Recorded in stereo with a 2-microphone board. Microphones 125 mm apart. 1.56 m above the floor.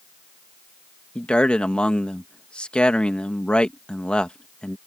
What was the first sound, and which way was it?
A man speaking, 10° left (ahead or behind).